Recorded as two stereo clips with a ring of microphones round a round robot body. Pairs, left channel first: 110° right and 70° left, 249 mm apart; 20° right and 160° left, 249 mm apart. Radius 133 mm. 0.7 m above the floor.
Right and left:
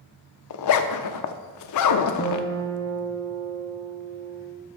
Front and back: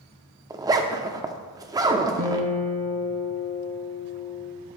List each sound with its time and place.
0.5 s a zipper: 125° right, 0.6 m
2.2 s a guitar: 175° right, 2.5 m